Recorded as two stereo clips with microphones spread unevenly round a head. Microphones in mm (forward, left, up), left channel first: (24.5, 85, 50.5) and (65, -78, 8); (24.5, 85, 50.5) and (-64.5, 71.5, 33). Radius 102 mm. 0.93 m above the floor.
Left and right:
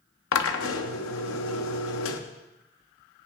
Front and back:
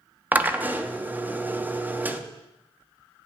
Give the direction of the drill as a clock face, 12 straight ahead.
8 o'clock.